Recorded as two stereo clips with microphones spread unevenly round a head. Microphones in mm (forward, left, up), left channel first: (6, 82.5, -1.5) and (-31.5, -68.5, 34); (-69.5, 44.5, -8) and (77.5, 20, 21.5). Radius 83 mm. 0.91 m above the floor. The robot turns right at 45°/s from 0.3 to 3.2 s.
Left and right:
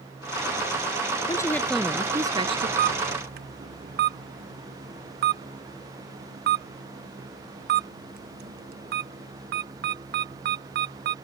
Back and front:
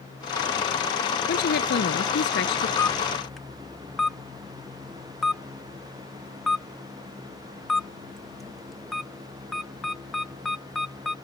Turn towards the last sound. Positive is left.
turn(degrees=-110)